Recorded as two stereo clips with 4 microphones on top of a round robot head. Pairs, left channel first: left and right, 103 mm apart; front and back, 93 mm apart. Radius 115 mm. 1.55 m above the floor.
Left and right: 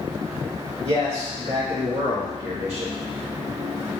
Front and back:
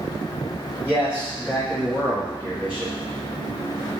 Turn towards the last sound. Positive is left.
turn(degrees=-110)